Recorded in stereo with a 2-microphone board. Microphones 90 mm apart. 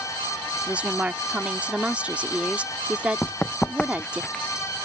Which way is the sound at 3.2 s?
15° left (ahead or behind).